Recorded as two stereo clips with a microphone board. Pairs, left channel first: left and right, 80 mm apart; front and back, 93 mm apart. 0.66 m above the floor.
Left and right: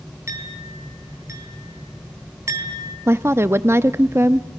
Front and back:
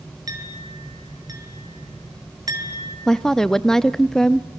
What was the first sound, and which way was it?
A clink, 135° right.